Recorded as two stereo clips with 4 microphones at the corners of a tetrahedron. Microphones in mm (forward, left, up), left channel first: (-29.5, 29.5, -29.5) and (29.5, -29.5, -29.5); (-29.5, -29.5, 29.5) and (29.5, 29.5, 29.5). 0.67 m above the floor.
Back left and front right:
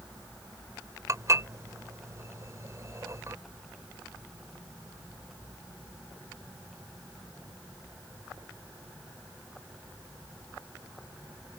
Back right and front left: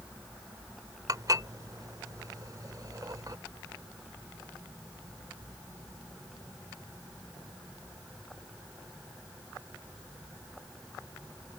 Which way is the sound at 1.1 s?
5° left.